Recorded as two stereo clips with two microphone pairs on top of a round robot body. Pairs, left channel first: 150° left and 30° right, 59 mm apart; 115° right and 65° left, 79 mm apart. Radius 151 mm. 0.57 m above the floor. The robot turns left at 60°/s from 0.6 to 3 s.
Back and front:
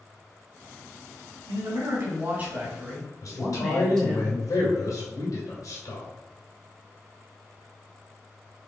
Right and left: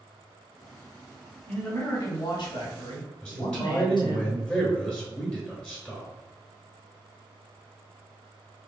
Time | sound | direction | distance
1.5 | a man speaking | 40° right | 2 m
3.2 | a man speaking | 165° left | 2 m